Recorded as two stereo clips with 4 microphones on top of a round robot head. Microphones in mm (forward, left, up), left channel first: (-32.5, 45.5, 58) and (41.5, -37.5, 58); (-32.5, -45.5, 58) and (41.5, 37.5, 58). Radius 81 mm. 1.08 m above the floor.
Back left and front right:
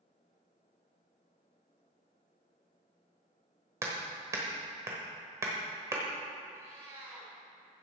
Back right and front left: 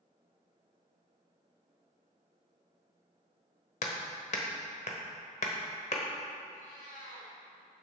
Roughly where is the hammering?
Behind right.